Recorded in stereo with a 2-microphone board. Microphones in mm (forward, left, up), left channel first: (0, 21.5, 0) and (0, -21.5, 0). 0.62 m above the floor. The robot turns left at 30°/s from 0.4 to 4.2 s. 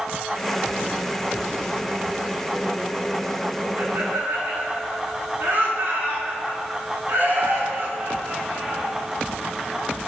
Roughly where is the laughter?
Right.